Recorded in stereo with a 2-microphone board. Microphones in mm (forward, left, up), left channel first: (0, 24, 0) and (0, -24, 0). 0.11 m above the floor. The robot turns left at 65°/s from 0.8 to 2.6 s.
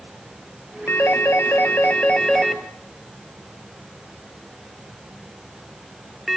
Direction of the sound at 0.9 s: 50° left (ahead or behind).